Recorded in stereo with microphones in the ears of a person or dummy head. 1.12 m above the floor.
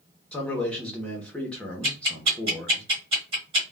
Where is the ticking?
35° right (ahead or behind), 1.6 m.